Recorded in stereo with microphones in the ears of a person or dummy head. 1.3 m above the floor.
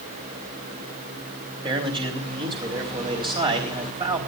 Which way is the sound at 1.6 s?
25° right (ahead or behind).